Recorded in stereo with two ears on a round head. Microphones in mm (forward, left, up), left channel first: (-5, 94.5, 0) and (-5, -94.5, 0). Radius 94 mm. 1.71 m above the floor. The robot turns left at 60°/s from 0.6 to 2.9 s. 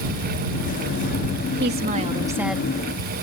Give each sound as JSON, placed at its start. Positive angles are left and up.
{"t": 1.6, "sound": "a woman speaking", "azimuth_deg": -125}